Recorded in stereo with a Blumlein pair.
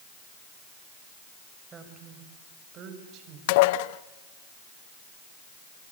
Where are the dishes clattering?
50° left, 0.7 m.